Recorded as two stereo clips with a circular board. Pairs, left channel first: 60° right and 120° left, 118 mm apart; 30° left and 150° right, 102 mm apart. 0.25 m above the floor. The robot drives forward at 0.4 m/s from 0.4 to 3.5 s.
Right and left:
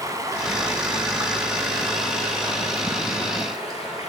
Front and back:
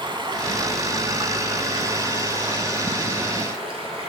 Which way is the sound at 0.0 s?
175° left.